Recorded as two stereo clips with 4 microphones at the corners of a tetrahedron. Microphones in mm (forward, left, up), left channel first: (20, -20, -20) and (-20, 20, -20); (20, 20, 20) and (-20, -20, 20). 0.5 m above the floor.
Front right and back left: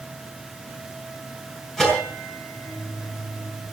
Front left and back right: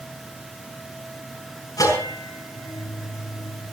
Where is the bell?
35° left, 6.5 m.